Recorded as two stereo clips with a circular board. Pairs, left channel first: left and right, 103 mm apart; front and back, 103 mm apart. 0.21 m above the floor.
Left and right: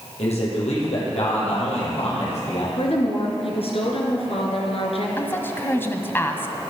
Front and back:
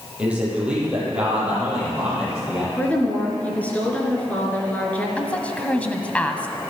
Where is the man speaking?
100° left, 7 m.